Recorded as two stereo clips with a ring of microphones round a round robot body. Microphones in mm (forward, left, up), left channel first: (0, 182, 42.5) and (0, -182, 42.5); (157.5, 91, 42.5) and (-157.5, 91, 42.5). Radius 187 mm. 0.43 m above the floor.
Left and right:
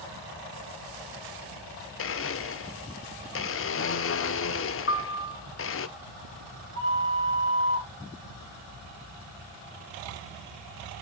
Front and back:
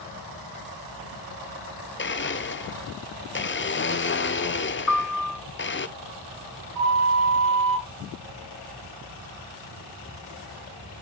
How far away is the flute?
About 7 m.